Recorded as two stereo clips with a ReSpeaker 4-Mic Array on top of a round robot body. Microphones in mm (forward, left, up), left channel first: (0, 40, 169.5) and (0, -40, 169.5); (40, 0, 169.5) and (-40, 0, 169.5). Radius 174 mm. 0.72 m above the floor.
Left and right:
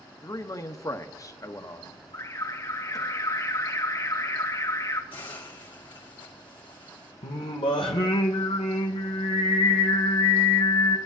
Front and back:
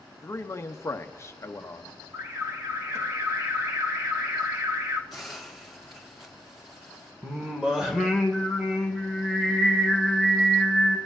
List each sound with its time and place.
0.2 s a man speaking: 50° left, 0.9 m
2.1 s an alarm: 130° left, 2 m
5.1 s a hiss: 90° left, 2.0 m
7.2 s singing: 95° left, 0.7 m